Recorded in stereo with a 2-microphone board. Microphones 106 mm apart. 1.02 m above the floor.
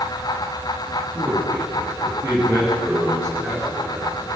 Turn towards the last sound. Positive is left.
turn(degrees=-25)  # may be behind; listen again after turning